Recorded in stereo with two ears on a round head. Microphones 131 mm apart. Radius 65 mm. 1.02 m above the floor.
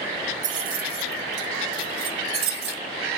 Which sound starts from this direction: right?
Keys jangling, at 0.4 s.